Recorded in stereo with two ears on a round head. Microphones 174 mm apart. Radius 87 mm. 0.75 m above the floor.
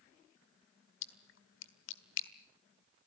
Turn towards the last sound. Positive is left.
turn(degrees=75)  # may be behind; listen again after turning